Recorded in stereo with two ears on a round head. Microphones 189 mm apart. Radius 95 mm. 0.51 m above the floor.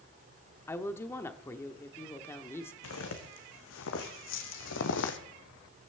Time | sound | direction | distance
0.7 | a woman speaking | 10° left (ahead or behind) | 1.0 m
2.8 | footsteps | 65° left (ahead or behind) | 3 m